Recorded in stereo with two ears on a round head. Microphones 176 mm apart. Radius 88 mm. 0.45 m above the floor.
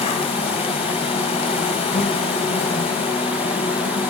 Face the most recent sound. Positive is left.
turn(degrees=30)  # may be behind; listen again after turning